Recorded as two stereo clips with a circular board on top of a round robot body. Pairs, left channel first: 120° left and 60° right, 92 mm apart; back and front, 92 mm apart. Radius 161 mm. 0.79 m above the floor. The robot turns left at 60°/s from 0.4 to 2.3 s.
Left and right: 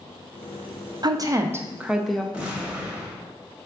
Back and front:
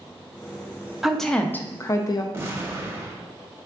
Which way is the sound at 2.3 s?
5° left.